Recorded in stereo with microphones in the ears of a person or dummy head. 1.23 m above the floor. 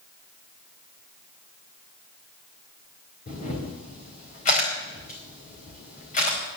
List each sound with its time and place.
3.3 s a camera shutter: 35° left (ahead or behind), 4 m